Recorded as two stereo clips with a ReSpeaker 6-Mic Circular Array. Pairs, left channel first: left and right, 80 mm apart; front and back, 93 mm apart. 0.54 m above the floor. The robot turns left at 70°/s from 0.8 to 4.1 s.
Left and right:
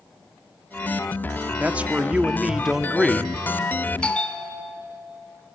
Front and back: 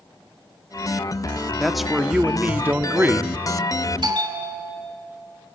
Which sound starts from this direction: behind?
A bell, at 4.0 s.